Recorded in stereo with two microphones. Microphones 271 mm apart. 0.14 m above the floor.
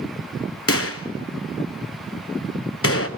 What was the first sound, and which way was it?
A gunshot, 60° left (ahead or behind).